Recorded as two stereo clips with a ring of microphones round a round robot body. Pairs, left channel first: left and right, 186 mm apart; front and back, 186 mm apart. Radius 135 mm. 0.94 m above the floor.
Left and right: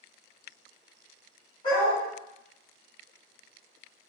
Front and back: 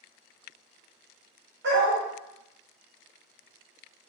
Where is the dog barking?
165° left, 2 m.